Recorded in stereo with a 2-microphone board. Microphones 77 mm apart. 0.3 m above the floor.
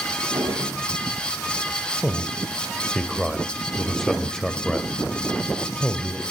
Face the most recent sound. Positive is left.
turn(degrees=5)  # may be behind; listen again after turning